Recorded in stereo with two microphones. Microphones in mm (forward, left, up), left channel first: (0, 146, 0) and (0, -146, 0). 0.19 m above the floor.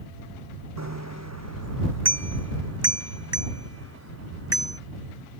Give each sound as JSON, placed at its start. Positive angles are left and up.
{"t": 0.8, "sound": "a bicycle bell", "side_deg": -60}